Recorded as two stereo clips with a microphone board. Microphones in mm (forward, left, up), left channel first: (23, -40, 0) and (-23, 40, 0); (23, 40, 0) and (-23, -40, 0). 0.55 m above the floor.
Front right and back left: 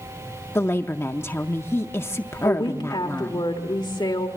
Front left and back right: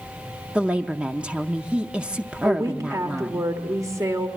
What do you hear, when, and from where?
0.6 s a woman speaking: 60° right, 0.6 m
2.4 s a woman speaking: 75° right, 1.5 m